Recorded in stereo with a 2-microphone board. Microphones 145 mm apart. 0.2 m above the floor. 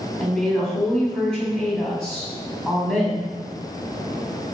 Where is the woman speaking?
5° left (ahead or behind), 1.3 m.